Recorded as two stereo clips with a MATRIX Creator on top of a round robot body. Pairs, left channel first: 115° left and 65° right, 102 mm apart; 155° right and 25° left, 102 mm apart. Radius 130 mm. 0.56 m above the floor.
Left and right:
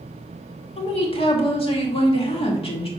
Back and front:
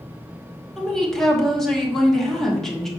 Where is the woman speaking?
115° left, 2 m.